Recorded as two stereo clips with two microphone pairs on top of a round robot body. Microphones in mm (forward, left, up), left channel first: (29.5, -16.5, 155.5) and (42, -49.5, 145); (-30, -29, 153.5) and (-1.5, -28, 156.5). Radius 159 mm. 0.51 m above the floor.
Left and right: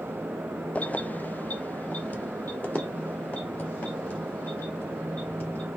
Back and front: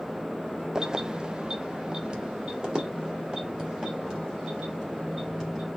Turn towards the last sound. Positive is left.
turn(degrees=70)